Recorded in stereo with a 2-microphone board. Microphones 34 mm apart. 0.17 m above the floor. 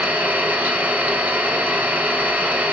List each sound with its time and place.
0.0 s an engine running: 60° right (ahead or behind), 1.1 m